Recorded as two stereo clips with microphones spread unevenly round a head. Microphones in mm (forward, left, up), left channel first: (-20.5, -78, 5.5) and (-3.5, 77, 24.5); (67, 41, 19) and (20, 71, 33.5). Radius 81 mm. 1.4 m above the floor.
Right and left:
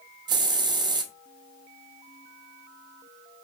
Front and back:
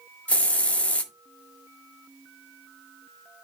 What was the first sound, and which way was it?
A hiss, 40° left.